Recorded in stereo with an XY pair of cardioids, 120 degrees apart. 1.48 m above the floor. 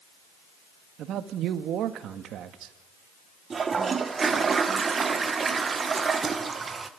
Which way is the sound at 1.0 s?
65° right.